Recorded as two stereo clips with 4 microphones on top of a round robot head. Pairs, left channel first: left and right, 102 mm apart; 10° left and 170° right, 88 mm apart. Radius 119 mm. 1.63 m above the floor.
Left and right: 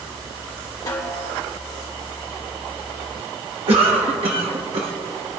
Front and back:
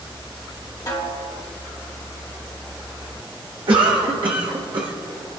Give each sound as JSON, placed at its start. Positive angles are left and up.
{"t": 0.9, "sound": "a snare drum", "azimuth_deg": 50, "distance_m": 2.0}
{"t": 3.7, "sound": "a cough", "azimuth_deg": -125, "distance_m": 1.3}